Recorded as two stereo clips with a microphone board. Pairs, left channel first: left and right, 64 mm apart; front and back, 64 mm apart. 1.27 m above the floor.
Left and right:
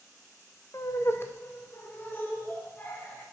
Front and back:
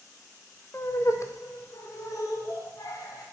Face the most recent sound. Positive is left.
turn(degrees=25)